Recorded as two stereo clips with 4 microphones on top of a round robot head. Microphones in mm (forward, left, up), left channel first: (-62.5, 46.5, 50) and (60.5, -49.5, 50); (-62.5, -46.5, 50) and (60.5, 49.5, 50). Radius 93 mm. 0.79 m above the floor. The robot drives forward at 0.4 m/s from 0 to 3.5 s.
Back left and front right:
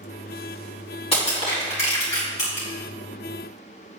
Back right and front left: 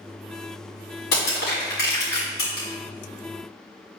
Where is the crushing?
165° right, 2.5 m.